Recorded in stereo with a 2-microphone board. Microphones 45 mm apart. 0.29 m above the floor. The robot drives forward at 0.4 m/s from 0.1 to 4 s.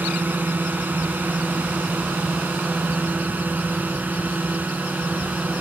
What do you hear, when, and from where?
0.0 s a drone: 50° right (ahead or behind); by 5.6 s 45° right (ahead or behind)